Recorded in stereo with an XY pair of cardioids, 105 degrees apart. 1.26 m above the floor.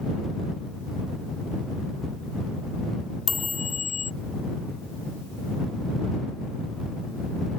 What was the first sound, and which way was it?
A chime, 40° left.